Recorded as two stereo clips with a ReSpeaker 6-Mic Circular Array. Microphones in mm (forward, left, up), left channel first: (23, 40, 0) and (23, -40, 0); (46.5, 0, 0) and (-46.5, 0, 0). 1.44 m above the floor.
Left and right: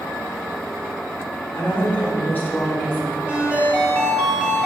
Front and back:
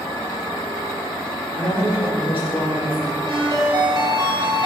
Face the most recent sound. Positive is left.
turn(degrees=-155)